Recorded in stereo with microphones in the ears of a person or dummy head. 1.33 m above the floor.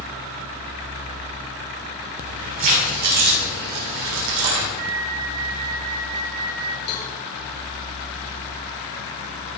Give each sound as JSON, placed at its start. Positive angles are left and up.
{"t": 2.2, "sound": "keys jangling", "side_deg": -35, "distance_m": 3.5}
{"t": 4.8, "sound": "a flute", "side_deg": -45, "distance_m": 1.0}
{"t": 6.9, "sound": "a cowbell", "side_deg": 55, "distance_m": 2.5}